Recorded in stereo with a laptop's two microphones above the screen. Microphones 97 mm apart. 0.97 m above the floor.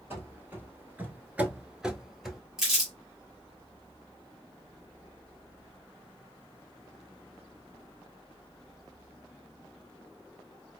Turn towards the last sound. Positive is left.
turn(degrees=-5)  # may be behind; listen again after turning